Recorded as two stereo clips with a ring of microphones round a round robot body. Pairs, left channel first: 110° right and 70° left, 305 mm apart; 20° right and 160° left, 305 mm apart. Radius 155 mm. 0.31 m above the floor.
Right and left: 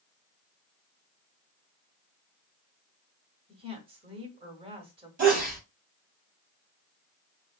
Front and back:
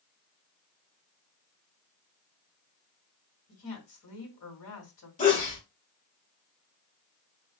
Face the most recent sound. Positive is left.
turn(degrees=25)